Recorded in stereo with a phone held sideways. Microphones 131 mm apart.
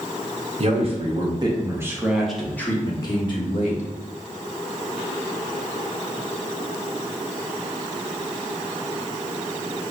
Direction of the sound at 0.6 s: 50° right (ahead or behind).